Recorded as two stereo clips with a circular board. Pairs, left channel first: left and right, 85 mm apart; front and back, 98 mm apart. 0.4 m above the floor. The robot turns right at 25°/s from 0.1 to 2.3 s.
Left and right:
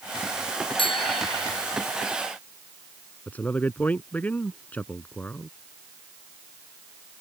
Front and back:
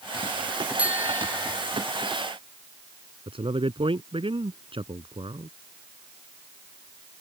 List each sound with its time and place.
0.8 s a bicycle bell: 105° left; by 1.6 s 125° left
3.3 s a man speaking: 160° left